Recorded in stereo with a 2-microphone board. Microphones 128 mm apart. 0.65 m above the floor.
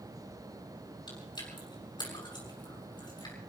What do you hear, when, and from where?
1.1 s chewing: 35° left (ahead or behind), 6 m